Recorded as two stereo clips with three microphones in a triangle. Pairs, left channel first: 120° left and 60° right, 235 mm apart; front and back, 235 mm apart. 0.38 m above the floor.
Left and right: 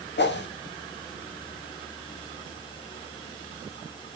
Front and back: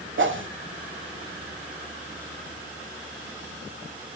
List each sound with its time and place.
0.2 s a whoosh: 155° left, 0.6 m